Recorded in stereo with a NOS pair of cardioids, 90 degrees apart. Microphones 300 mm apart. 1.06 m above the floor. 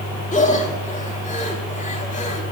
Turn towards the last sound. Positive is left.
turn(degrees=25)